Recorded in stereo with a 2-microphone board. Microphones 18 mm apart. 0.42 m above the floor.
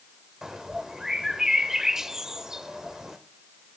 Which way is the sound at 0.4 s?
30° right (ahead or behind).